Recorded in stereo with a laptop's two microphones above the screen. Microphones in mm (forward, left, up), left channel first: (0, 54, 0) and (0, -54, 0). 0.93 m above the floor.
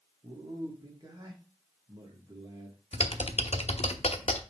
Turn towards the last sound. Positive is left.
turn(degrees=70)  # may be behind; listen again after turning